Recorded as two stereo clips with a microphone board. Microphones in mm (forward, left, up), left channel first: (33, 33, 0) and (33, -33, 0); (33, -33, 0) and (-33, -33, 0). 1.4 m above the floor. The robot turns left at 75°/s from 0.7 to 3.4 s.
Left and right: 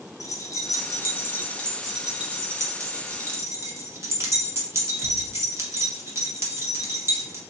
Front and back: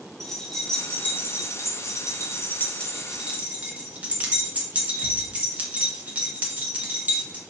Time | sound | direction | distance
0.2 | keys jangling | 85° left | 0.7 m